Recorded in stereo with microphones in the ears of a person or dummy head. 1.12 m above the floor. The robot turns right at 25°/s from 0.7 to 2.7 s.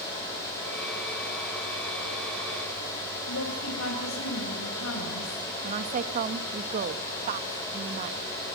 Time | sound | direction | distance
3.3 | a woman speaking | 80° left | 5.5 m
5.6 | a woman speaking | 40° right (ahead or behind) | 1.4 m